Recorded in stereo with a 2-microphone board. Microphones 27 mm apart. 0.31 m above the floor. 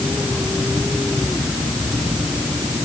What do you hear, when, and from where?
Only background noise.